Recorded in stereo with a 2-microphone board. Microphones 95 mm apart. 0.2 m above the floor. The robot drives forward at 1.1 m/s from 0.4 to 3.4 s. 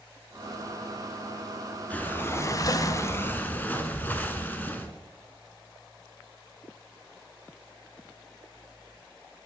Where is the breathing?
15° left (ahead or behind), 1.0 m; by 4.9 s 20° left (ahead or behind), 0.9 m.